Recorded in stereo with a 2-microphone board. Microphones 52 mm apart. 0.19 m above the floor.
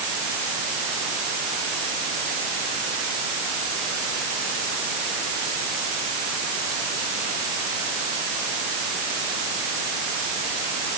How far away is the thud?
I don't hear a thud.